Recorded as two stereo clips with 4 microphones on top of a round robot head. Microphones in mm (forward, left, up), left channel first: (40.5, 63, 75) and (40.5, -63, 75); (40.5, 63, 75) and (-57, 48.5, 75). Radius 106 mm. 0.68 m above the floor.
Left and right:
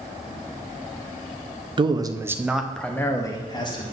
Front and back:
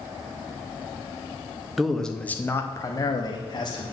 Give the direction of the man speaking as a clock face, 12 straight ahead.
3 o'clock.